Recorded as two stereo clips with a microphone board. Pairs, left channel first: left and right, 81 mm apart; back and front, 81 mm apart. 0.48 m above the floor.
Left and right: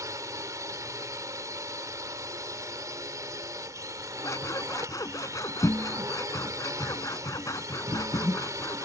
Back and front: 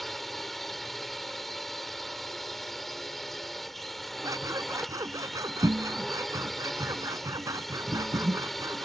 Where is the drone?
95° right.